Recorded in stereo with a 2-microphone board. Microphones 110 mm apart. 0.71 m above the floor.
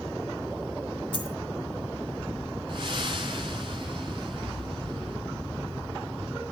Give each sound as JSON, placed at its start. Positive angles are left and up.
{"t": 1.1, "sound": "a dropped coin", "side_deg": 50, "distance_m": 1.5}
{"t": 2.7, "sound": "breathing", "side_deg": -45, "distance_m": 2.5}